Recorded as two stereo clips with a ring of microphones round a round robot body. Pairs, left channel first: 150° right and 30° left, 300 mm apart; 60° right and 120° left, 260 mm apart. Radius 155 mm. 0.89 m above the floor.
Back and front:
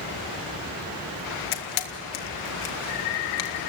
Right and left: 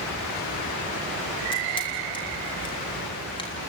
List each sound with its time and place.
1.5 s a camera shutter: 135° right, 1.8 m